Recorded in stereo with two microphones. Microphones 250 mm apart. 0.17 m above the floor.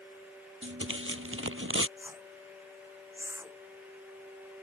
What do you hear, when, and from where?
0.6 s tearing paper: 55° right (ahead or behind)
2.0 s a whoosh: 10° right (ahead or behind)